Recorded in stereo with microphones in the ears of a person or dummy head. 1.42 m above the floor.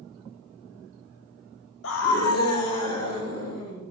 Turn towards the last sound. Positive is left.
turn(degrees=85)